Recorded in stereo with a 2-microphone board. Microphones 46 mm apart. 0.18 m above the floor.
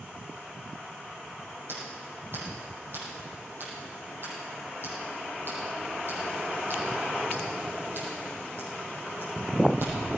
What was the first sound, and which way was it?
Scissors, 55° right (ahead or behind).